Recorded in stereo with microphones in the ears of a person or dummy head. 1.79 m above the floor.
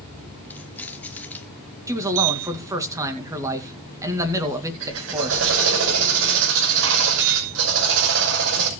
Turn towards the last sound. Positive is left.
turn(degrees=-65)  # may be behind; listen again after turning